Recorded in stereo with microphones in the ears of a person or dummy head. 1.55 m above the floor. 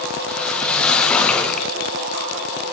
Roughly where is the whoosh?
Centre.